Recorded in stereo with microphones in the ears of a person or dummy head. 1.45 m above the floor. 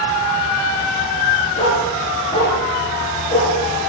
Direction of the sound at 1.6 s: 35° left (ahead or behind).